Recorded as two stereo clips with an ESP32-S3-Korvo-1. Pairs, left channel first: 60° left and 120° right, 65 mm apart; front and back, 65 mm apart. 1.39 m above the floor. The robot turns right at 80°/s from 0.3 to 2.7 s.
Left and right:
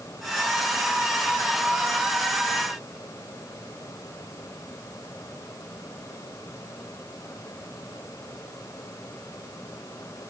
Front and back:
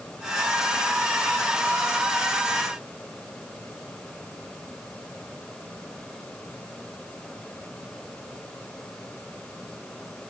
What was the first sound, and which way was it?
Only background noise.